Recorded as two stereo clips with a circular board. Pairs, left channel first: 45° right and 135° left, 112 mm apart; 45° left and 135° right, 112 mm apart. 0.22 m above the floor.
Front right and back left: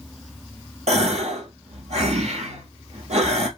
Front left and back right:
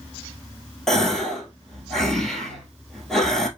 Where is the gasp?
130° left, 1.3 m.